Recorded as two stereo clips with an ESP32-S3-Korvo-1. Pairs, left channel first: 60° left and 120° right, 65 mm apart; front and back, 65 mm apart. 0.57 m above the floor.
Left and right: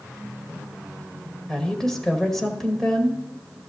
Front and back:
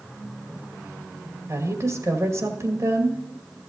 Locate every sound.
1.5 s a woman speaking: 145° left, 1.9 m